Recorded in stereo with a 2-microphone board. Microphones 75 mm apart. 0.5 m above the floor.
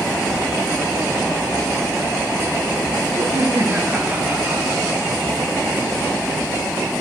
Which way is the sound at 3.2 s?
40° right (ahead or behind).